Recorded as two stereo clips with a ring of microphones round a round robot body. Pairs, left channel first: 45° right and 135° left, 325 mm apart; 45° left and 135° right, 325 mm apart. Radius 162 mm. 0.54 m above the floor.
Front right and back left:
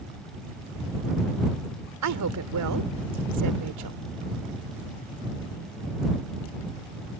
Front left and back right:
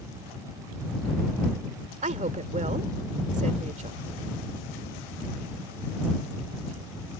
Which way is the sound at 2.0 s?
160° left.